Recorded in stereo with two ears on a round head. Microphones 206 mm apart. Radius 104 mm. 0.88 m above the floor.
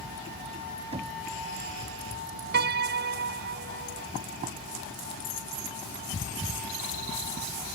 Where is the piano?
50° right (ahead or behind).